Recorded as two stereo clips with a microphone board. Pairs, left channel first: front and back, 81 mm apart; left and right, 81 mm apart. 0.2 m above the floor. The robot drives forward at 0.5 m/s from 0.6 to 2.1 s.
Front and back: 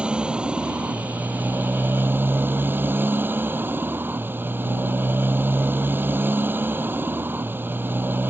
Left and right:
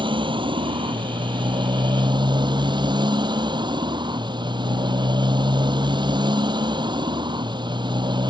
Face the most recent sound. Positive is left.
turn(degrees=-115)